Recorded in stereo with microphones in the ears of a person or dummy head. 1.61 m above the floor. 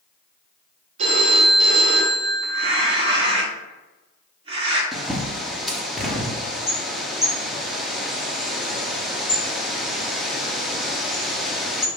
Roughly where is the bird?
Centre.